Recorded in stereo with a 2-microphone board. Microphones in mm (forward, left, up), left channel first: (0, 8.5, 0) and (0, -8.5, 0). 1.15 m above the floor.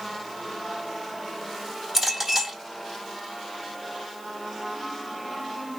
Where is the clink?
25° right (ahead or behind), 2.5 m.